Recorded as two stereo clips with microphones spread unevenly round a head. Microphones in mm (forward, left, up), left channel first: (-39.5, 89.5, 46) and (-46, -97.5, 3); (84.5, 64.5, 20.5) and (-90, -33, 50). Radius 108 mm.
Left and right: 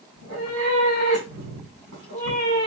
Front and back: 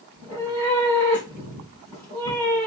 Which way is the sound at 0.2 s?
85° right.